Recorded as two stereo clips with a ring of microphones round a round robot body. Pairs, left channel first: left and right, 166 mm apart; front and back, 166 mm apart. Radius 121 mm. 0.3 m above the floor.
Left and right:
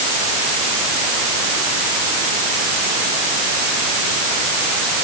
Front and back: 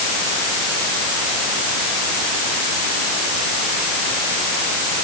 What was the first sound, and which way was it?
Only background noise.